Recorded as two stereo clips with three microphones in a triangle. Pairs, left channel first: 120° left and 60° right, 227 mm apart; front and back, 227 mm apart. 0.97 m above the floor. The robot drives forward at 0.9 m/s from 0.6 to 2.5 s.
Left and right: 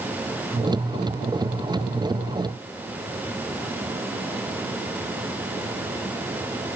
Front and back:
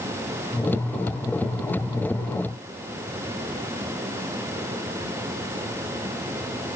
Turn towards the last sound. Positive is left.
No sound to turn to.